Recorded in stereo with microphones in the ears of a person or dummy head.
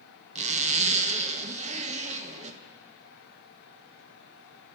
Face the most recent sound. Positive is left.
turn(degrees=-35)  # may be behind; listen again after turning